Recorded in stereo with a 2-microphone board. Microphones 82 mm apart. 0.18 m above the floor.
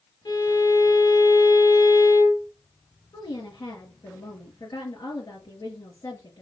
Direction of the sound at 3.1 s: 60° left (ahead or behind).